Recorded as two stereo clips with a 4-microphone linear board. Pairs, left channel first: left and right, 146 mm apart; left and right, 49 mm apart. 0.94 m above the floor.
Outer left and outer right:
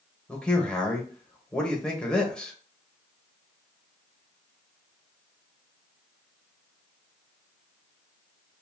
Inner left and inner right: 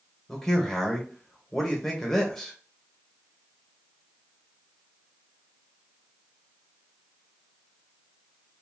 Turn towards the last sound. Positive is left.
turn(degrees=5)  # may be behind; listen again after turning